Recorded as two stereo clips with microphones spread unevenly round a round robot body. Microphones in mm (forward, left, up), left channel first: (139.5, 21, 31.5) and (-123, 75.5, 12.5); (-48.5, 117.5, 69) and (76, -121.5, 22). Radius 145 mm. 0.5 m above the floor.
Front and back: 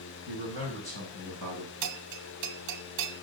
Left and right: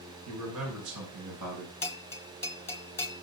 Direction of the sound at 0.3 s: 80° right.